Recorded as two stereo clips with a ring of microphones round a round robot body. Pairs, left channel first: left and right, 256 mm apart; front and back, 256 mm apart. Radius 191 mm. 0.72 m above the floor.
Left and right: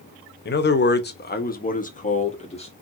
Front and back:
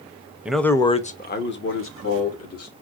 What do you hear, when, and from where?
0.5 s a man speaking: 95° left, 0.8 m; by 2.7 s 20° left, 1.7 m